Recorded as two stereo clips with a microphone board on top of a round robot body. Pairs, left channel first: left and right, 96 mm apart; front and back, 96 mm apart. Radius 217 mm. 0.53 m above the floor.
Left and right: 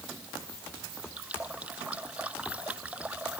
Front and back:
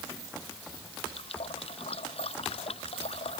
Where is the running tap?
10° right.